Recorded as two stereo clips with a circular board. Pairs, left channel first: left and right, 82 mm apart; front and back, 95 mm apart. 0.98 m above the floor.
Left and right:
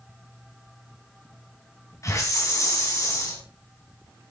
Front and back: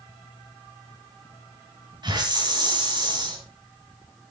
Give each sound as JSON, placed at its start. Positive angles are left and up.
{"t": 2.0, "sound": "a hiss", "azimuth_deg": 140, "distance_m": 3.5}